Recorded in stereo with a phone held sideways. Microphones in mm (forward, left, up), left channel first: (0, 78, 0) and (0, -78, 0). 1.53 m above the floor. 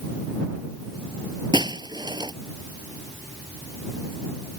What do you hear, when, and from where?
1.5 s breaking glass: 30° right (ahead or behind)